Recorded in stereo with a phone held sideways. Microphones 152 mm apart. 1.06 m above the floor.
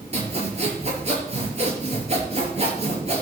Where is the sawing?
45° right (ahead or behind), 5 m.